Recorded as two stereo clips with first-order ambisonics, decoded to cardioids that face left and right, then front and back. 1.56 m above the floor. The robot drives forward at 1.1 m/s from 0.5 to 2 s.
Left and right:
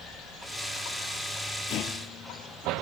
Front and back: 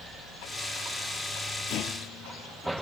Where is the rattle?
40° left; by 2.8 s 45° left.